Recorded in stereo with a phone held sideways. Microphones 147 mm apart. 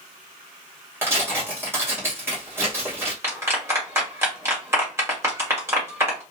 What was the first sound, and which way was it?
Tearing paper, 15° right (ahead or behind).